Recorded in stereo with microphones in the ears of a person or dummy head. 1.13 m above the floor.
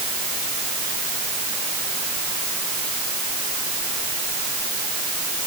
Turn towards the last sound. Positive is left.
No sound to turn to.